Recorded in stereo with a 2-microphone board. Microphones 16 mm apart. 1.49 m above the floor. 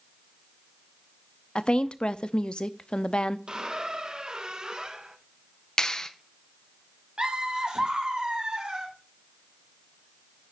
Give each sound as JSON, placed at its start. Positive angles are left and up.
{"t": 1.6, "sound": "a woman speaking", "side_deg": 60, "distance_m": 0.6}
{"t": 3.5, "sound": "a squeak", "side_deg": -45, "distance_m": 1.0}
{"t": 5.8, "sound": "a clap", "side_deg": 40, "distance_m": 0.8}
{"t": 7.2, "sound": "laughter", "side_deg": -65, "distance_m": 3.0}